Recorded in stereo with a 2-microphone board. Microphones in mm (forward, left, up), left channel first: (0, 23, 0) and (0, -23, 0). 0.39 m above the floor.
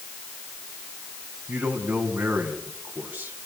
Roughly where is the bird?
I don't hear a bird.